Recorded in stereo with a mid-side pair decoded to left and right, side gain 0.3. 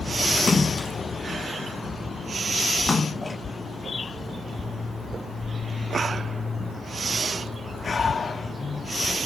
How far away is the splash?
About 1.1 m.